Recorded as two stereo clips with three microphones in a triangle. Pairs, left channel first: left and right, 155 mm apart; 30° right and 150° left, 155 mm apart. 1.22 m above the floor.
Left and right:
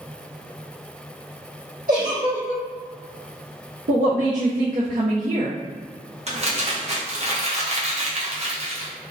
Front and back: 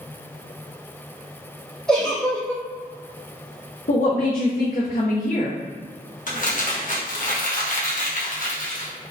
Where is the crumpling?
50° right, 0.8 m.